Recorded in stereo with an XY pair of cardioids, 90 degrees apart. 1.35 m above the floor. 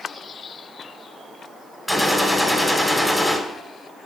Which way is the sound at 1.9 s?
5° left.